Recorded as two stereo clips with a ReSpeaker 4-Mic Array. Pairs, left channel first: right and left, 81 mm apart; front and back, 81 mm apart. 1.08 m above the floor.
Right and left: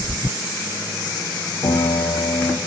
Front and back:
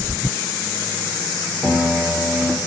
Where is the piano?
105° right, 0.7 m.